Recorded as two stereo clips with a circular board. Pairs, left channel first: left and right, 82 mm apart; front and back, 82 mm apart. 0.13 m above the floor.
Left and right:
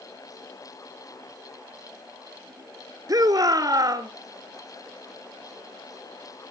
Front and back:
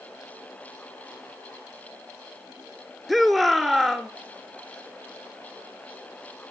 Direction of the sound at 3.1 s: 90° right.